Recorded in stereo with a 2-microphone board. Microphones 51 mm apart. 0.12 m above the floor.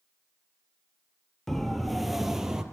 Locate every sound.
1.5 s a siren: 5° left (ahead or behind), 2.5 m; by 2.6 s 15° right (ahead or behind), 3 m